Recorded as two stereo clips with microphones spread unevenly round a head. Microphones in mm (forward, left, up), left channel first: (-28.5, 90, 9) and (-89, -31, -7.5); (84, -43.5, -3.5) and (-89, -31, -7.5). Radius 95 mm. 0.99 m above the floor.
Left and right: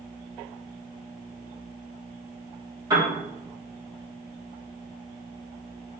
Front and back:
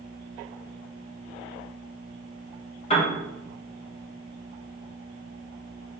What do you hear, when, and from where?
2.9 s a piano: 55° right, 1.3 m